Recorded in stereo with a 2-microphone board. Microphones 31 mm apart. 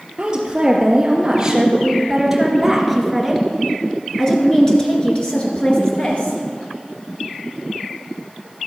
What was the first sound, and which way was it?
A woman speaking, 25° right (ahead or behind).